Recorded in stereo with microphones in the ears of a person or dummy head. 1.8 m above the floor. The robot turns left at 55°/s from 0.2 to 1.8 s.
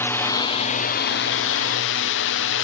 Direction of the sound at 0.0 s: 165° left.